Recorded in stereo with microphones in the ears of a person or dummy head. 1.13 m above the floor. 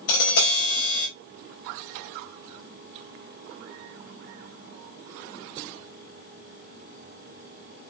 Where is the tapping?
70° left (ahead or behind), 4 m.